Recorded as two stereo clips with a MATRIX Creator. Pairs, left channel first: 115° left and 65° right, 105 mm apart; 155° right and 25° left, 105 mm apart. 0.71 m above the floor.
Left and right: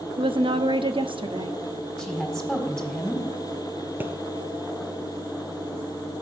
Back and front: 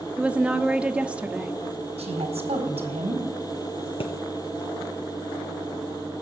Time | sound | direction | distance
0.2 | a woman speaking | 55° right | 1.1 m
2.0 | a woman speaking | 25° left | 3.5 m
4.0 | a thud | 140° right | 1.4 m